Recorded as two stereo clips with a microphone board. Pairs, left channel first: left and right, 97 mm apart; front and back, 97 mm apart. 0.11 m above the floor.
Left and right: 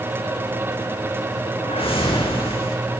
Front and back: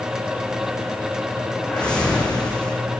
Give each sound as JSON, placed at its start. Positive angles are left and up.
{"t": 1.6, "sound": "a whoosh", "azimuth_deg": 80, "distance_m": 4.0}